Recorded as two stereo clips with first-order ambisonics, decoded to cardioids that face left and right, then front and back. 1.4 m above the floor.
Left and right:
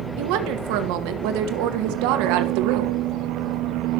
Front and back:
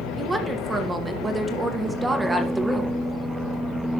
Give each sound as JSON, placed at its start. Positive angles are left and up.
{"t": 0.2, "sound": "a woman speaking", "azimuth_deg": -100, "distance_m": 1.3}